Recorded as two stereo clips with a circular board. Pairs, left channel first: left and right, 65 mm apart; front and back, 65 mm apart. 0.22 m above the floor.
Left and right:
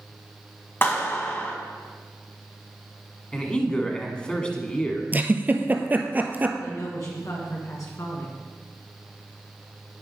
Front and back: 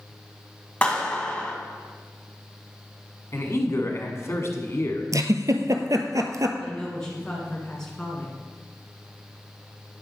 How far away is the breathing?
I don't hear breathing.